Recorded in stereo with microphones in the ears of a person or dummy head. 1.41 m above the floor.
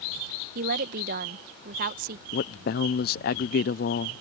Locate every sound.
0.6 s a woman speaking: 45° right (ahead or behind)
2.3 s a man speaking: 55° left (ahead or behind)